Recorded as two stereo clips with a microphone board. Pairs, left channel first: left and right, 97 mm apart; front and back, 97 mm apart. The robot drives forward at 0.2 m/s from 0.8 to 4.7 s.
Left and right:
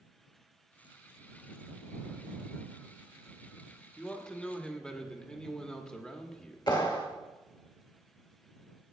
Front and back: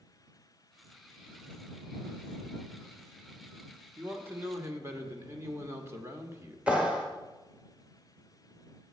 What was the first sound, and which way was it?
A man speaking, 155° left.